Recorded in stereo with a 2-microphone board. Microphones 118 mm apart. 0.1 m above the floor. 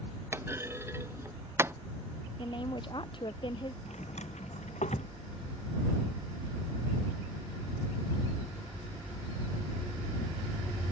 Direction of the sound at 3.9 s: 80° left.